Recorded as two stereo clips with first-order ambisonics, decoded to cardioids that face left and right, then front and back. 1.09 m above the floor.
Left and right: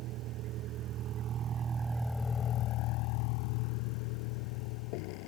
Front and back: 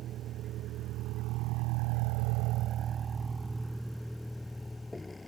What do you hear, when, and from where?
0.0 s a vehicle: 130° right; by 5.3 s 80° left